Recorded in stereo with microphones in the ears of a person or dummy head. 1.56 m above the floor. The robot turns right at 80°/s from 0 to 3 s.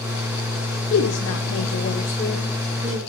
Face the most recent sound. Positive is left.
turn(degrees=-135)